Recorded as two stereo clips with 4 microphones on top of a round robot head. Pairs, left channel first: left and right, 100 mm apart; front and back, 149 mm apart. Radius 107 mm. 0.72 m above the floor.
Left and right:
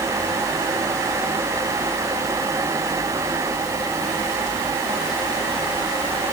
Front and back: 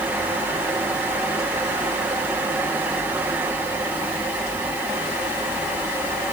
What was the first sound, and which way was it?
Only background noise.